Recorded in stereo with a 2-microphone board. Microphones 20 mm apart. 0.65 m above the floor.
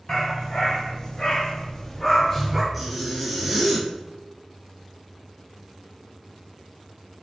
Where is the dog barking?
35° left (ahead or behind), 1.0 m; by 2.6 s 10° left (ahead or behind), 0.7 m.